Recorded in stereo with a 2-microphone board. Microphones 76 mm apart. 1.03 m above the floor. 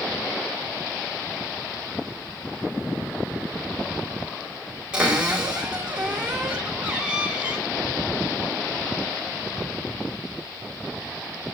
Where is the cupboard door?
15° right (ahead or behind), 4 m.